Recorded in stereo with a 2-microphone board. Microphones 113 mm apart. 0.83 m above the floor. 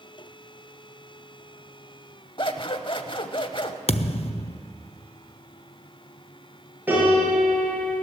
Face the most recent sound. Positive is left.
turn(degrees=-15)  # may be behind; listen again after turning